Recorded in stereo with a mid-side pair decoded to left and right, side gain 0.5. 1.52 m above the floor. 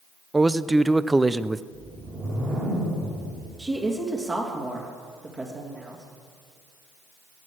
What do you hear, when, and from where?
0.3 s a man speaking: 15° right, 0.6 m
1.7 s a whoosh: 40° right, 6.5 m
3.6 s a woman speaking: 30° right, 3 m